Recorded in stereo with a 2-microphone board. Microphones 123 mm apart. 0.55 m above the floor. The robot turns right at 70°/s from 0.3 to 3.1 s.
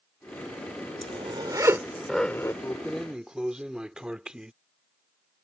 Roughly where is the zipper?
Right.